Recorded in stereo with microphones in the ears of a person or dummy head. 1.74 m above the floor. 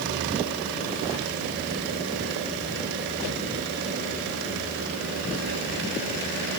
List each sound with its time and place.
Only background noise.